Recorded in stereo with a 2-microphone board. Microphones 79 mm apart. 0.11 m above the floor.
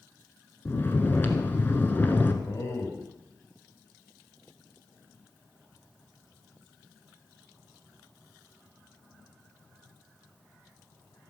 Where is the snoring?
25° left (ahead or behind), 1.4 m.